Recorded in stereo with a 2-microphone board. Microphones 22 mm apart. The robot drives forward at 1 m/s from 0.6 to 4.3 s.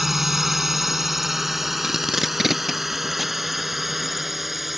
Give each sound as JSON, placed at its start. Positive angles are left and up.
{"t": 0.0, "sound": "a drone", "side_deg": -10}
{"t": 1.8, "sound": "tape being pulled", "side_deg": -25}